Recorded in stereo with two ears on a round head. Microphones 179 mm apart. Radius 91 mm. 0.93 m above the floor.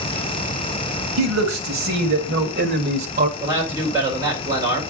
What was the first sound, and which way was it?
A man speaking, 75° right (ahead or behind).